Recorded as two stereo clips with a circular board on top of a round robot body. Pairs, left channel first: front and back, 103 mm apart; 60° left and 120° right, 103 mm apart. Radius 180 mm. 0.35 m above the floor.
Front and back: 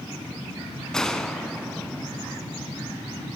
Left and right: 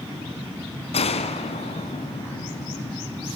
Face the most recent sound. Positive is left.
turn(degrees=85)